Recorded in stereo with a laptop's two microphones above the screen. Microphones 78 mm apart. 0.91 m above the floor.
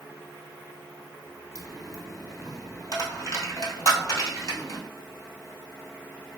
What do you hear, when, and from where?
1.6 s a dropped coin: 40° left (ahead or behind), 1.1 m